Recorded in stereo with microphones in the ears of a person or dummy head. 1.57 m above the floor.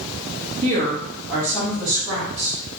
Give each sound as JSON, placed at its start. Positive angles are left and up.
{"t": 0.6, "sound": "a woman speaking", "side_deg": -45, "distance_m": 1.0}